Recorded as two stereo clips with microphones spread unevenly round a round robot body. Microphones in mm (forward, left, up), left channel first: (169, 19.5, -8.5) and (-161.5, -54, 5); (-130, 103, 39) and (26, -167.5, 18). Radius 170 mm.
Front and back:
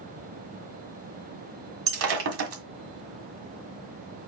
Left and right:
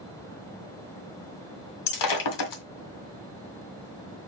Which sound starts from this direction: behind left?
Breaking glass, at 1.9 s.